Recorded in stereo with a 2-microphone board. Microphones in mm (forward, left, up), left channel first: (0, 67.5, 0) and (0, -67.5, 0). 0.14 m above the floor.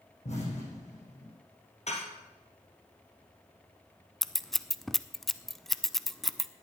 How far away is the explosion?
About 8 m.